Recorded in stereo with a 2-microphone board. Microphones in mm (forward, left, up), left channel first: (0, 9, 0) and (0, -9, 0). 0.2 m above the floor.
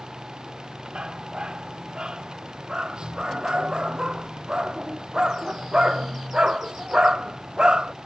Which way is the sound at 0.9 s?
55° right (ahead or behind).